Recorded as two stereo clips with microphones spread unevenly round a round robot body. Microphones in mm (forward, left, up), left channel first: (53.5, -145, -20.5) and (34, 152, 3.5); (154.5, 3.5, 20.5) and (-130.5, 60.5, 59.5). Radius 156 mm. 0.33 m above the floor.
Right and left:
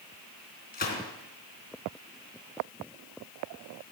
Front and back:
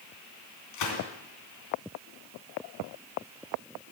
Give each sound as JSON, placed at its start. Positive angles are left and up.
{"t": 0.7, "sound": "a gunshot", "azimuth_deg": -25, "distance_m": 3.0}